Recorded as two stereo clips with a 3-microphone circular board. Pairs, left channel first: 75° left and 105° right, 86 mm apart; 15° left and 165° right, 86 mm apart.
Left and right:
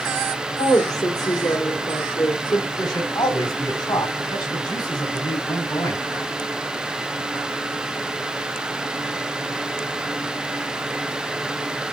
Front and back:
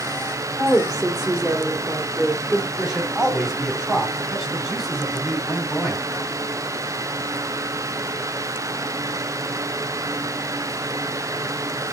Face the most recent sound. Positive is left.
turn(degrees=110)